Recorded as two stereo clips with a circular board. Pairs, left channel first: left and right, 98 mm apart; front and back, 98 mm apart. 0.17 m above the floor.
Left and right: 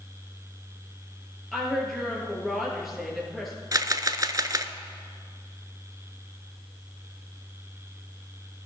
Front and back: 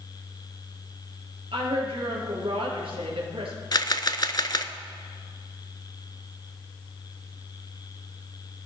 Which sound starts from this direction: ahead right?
A camera shutter, at 3.7 s.